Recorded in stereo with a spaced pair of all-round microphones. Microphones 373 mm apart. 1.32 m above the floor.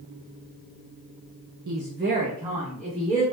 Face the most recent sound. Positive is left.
turn(degrees=5)  # may be behind; listen again after turning